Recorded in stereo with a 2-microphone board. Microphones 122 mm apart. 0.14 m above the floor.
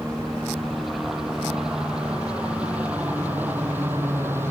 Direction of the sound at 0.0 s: Centre (ahead or behind).